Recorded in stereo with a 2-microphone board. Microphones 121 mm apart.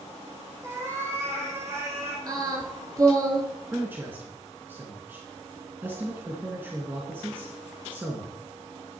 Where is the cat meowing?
20° right (ahead or behind), 2.5 m; by 2.2 s 25° right (ahead or behind), 3.5 m.